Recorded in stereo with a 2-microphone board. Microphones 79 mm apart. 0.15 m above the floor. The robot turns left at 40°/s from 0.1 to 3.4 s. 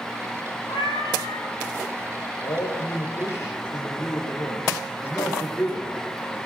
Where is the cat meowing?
105° left, 7 m; by 1.5 s 75° left, 7 m.